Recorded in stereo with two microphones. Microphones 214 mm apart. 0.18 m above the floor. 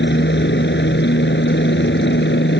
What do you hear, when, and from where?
0.0 s a helicopter: 60° left (ahead or behind)